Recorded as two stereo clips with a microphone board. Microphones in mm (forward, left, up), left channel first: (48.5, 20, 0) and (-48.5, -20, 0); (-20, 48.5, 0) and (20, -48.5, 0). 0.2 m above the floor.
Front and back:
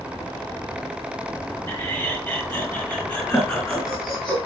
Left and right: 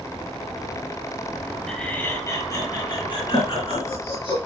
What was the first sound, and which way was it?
Laughter, 35° left.